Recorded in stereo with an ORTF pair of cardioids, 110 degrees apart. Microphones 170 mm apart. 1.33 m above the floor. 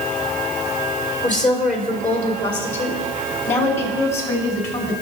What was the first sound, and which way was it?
A woman speaking, 50° left.